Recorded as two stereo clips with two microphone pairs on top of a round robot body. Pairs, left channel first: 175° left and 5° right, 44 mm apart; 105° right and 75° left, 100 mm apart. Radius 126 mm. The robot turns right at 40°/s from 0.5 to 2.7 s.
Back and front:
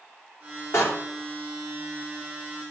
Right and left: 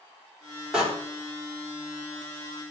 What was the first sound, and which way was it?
A door slam, 160° left.